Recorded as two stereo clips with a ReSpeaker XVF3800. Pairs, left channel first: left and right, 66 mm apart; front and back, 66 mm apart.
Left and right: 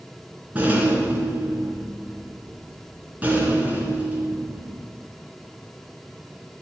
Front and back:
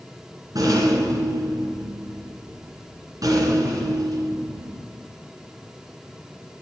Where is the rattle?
155° right, 2.5 m.